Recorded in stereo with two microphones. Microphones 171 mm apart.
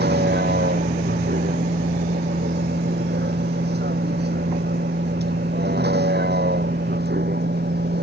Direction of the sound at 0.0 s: 75° right (ahead or behind).